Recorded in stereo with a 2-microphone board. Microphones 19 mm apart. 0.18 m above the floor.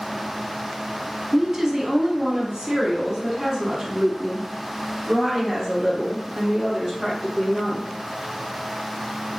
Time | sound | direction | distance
1.3 | a woman speaking | 25° right (ahead or behind) | 1.4 m